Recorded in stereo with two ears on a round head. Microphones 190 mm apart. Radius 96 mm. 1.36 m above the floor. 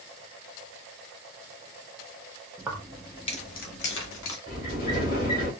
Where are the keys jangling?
15° right (ahead or behind), 0.8 m; by 4.4 s 70° left (ahead or behind), 1.2 m.